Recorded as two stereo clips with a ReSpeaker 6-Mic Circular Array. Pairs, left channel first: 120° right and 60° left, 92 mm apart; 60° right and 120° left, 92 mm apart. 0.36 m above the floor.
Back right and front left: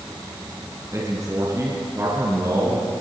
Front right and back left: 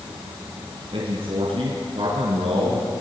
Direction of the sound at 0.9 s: 115° left.